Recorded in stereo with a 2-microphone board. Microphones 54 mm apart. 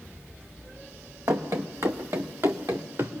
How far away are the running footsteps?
About 1.5 m.